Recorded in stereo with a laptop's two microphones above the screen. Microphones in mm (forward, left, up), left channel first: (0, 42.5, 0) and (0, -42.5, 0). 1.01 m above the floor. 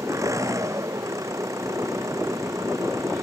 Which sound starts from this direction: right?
An engine running, at 0.0 s.